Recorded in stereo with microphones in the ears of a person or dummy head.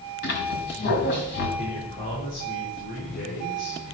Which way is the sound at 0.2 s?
55° left (ahead or behind).